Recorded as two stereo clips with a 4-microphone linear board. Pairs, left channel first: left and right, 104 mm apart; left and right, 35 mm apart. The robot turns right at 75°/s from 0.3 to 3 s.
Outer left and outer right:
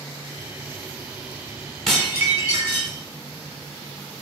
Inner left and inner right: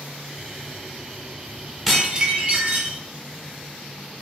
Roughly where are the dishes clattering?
Behind.